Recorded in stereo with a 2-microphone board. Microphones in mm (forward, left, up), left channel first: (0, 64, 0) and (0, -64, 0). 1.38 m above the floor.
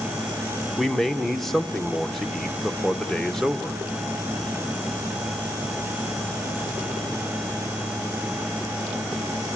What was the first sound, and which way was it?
A man speaking, centre (ahead or behind).